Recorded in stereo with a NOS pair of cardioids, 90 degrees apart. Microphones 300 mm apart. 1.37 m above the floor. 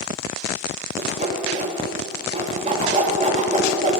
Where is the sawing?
25° right, 3 m.